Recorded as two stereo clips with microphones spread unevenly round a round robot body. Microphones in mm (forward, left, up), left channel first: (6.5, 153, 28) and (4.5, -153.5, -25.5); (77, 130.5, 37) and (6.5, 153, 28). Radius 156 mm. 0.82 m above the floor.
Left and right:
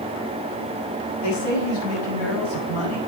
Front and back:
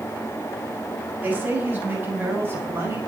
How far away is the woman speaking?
About 6.5 m.